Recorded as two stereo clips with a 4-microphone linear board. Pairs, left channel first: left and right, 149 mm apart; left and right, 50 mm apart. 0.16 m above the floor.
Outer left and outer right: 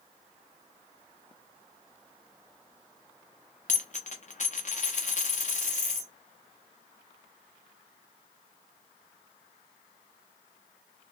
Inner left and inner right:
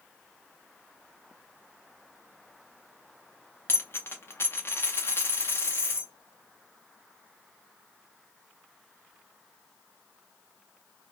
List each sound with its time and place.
3.7 s a dropped coin: 55° left (ahead or behind), 0.8 m